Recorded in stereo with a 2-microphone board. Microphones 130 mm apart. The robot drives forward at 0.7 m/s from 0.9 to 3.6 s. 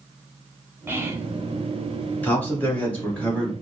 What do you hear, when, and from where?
0.9 s whispering: 20° right (ahead or behind), 1.0 m
2.2 s a man speaking: 15° left (ahead or behind), 2 m; by 3.5 s 10° left (ahead or behind), 3 m